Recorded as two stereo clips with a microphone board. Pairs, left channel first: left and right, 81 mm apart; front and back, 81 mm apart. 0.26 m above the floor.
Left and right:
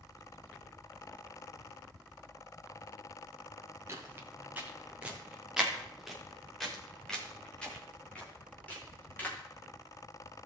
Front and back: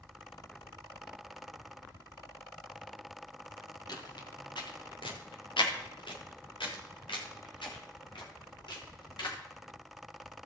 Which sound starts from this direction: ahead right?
Footsteps, at 3.9 s.